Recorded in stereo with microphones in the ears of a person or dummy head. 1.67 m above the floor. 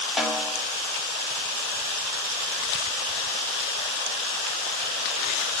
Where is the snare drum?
5° right (ahead or behind), 0.8 m.